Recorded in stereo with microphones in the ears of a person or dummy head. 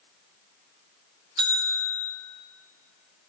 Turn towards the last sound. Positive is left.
turn(degrees=-25)  # may be behind; listen again after turning